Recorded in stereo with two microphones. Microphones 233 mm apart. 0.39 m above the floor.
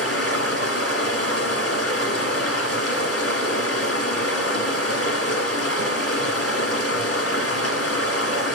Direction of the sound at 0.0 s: 80° left.